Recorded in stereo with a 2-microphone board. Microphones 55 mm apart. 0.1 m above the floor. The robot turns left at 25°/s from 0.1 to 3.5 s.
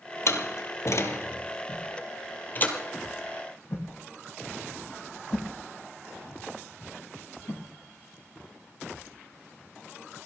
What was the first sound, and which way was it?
A door slam, 60° left (ahead or behind).